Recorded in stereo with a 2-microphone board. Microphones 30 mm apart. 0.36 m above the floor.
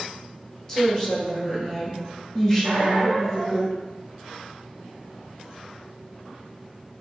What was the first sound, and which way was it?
A woman speaking, 20° left (ahead or behind).